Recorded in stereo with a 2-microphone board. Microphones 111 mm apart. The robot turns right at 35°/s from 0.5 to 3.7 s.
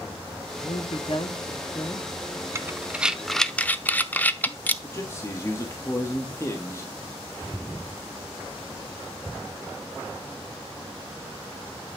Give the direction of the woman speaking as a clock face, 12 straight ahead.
9 o'clock.